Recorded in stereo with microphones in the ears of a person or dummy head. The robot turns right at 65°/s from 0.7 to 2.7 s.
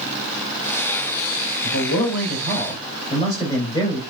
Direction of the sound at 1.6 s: 95° left.